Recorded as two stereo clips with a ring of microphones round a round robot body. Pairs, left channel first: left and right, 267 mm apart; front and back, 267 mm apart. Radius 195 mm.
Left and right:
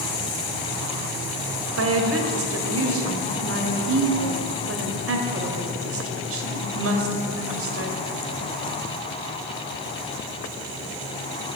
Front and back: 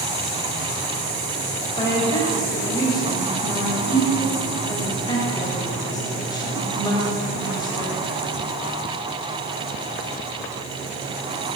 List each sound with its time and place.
1.8 s a woman speaking: 75° right, 2 m